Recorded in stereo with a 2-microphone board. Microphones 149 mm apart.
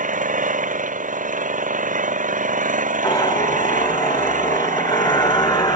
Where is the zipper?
25° left (ahead or behind).